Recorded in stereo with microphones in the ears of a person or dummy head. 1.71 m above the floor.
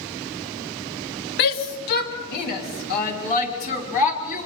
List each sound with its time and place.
1.4 s a shout: 55° left (ahead or behind), 2.5 m; by 4.5 s 40° left (ahead or behind), 5 m